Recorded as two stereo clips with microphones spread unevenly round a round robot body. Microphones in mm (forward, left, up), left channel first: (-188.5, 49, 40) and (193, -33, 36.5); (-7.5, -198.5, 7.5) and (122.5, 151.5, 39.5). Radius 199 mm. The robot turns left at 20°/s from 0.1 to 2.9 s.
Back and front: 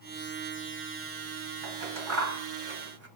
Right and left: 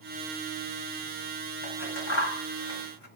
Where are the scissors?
45° right, 2 m; by 3.1 s 70° right, 2 m.